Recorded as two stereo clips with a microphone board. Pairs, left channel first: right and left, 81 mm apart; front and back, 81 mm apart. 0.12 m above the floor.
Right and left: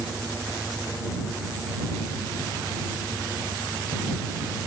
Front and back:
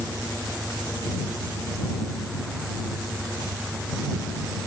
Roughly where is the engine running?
Behind.